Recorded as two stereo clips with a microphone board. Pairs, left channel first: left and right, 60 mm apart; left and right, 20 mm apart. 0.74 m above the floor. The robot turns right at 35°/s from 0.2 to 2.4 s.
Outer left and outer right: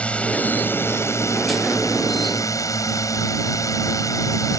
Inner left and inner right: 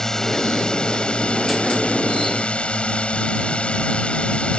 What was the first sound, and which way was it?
A drone, 25° left.